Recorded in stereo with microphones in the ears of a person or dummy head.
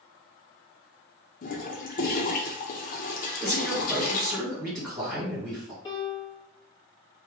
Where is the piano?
20° left (ahead or behind), 1.0 m.